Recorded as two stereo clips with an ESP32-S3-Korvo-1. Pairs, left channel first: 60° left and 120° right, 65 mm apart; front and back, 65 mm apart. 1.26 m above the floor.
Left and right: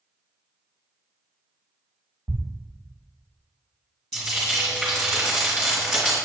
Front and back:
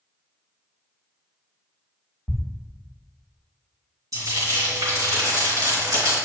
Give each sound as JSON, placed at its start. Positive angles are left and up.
{"t": 2.3, "sound": "a thud", "azimuth_deg": -70, "distance_m": 1.1}
{"t": 4.1, "sound": "frying", "azimuth_deg": 150, "distance_m": 2.5}